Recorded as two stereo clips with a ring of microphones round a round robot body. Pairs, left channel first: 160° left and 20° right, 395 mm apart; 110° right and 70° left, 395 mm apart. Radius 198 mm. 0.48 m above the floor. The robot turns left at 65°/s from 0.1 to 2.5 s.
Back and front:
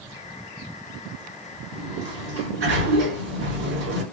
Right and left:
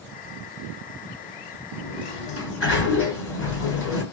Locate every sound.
1.7 s a sliding door: 25° right, 1.8 m; by 4.0 s 80° right, 1.8 m